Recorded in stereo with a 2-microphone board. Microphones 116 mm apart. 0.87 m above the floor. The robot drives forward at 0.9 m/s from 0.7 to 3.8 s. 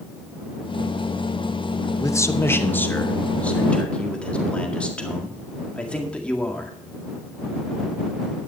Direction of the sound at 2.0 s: 25° left (ahead or behind).